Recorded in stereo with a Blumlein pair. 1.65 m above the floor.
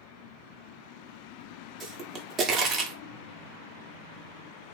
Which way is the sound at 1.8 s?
25° right.